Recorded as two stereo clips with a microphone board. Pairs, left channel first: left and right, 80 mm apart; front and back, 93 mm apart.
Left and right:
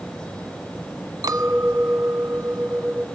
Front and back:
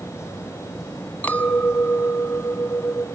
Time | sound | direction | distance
1.2 | a clink | 70° right | 1.4 m